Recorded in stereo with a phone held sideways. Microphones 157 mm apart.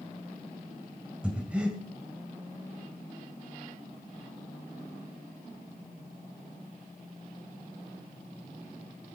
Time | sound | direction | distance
1.2 | breathing | 10° right (ahead or behind) | 1.7 m